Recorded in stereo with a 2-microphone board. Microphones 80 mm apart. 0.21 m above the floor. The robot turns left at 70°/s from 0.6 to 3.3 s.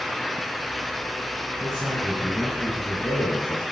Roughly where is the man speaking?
Right.